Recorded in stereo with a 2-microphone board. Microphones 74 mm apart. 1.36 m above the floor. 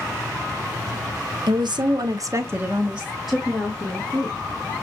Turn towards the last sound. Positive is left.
turn(degrees=10)  # may be behind; listen again after turning